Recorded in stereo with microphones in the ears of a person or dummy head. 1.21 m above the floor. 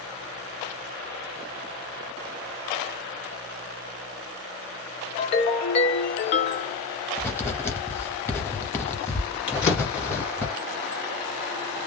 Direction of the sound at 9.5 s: 60° left (ahead or behind).